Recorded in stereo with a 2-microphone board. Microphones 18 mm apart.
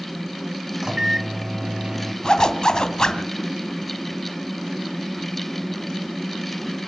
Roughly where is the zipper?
Left.